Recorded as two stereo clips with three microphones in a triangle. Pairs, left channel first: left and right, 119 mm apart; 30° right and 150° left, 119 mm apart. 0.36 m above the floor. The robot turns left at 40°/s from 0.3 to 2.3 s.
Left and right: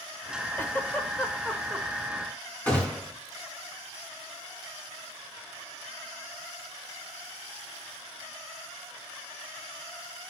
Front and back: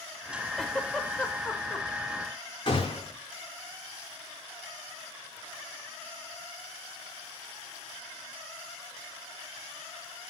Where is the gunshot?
15° left, 4.5 m.